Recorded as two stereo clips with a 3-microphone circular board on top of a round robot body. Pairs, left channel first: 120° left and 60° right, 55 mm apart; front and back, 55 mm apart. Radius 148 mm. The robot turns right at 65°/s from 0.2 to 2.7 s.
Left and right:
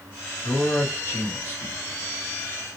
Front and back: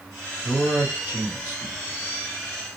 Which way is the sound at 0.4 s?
90° left.